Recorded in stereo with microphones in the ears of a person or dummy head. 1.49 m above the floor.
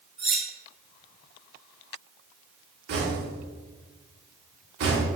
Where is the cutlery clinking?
Centre (ahead or behind), 1.0 m.